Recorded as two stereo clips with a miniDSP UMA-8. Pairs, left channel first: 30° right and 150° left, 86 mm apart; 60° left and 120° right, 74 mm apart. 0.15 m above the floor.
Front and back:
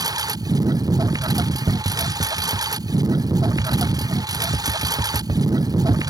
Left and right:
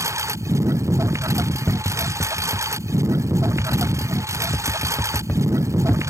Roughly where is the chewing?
I don't hear chewing.